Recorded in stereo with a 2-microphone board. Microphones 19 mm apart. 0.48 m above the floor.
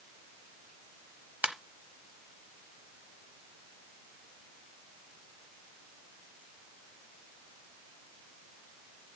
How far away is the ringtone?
About 0.9 m.